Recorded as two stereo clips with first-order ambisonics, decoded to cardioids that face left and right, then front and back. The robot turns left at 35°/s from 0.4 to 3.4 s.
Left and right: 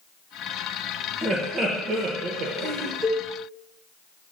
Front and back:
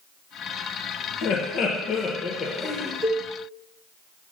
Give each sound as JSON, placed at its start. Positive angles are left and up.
{"t": 1.2, "sound": "laughter", "azimuth_deg": -15, "distance_m": 0.8}
{"t": 3.0, "sound": "a cowbell", "azimuth_deg": -115, "distance_m": 2.0}